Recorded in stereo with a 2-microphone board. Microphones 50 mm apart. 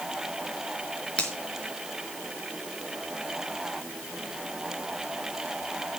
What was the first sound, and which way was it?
A finger snap, 25° left (ahead or behind).